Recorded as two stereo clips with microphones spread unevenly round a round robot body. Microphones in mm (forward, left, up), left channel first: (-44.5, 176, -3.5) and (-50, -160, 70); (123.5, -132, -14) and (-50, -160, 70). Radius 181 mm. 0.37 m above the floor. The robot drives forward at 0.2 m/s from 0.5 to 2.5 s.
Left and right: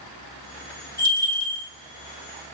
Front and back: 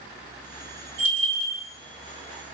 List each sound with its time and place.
1.0 s a bell: 145° left, 2.0 m; by 1.6 s 150° left, 2 m